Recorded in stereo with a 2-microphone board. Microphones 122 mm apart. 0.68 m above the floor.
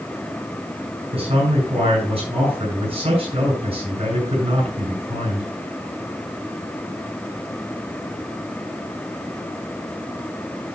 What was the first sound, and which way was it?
A man speaking, 50° right (ahead or behind).